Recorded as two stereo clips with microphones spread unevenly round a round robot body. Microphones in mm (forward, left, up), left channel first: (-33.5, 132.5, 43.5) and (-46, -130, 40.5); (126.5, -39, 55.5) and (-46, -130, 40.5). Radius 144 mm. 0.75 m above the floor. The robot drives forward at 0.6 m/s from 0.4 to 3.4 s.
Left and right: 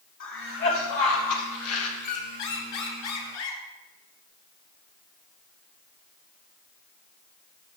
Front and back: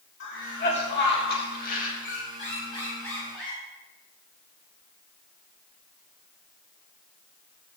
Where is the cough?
50° left, 2 m; by 1.9 s 75° left, 1.8 m.